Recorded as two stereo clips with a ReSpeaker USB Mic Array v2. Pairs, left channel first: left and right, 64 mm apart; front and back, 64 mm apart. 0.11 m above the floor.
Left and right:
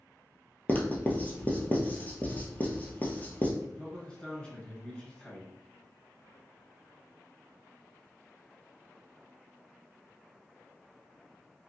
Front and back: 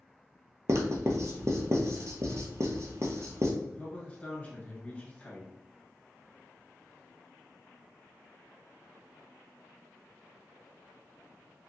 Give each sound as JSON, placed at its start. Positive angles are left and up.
{"t": 0.7, "sound": "writing", "azimuth_deg": 150, "distance_m": 0.8}
{"t": 3.6, "sound": "a man speaking", "azimuth_deg": 35, "distance_m": 1.2}